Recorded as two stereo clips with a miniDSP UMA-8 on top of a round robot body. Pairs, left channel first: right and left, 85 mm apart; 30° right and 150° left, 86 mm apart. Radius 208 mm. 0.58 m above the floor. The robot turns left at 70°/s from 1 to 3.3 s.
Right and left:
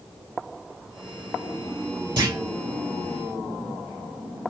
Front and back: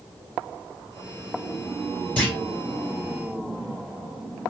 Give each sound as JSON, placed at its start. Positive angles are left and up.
{"t": 2.2, "sound": "a clunk", "azimuth_deg": 45, "distance_m": 3.0}